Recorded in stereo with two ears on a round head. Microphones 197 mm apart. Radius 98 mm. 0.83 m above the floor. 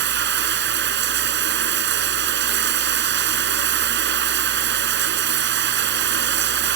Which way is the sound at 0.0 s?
55° right (ahead or behind).